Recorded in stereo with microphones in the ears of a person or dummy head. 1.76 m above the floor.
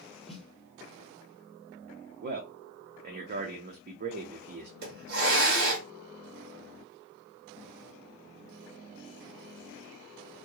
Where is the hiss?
55° right (ahead or behind), 1.7 m.